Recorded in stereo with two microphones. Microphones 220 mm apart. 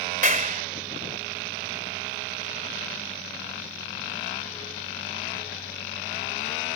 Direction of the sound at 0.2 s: 35° right (ahead or behind).